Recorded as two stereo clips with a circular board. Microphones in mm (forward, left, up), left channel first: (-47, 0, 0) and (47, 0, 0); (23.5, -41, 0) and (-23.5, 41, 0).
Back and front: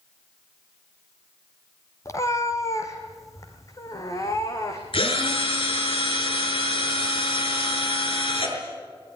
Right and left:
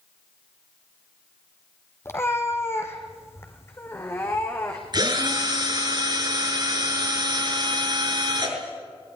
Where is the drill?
160° left, 5.5 m.